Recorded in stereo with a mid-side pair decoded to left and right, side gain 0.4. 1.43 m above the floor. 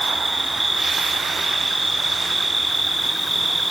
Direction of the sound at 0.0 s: 10° right.